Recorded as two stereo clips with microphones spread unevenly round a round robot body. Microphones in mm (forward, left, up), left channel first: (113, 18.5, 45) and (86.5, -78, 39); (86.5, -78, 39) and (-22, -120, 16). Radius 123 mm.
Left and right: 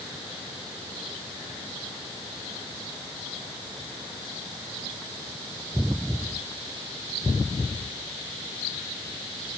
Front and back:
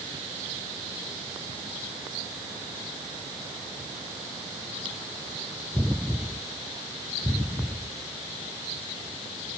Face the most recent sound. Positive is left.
No sound to turn to.